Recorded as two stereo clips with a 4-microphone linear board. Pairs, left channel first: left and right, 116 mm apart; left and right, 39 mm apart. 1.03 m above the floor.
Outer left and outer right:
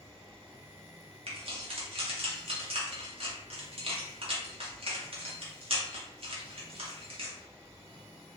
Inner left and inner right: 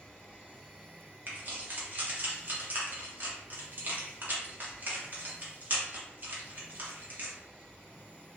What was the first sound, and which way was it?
Keys jangling, 55° right (ahead or behind).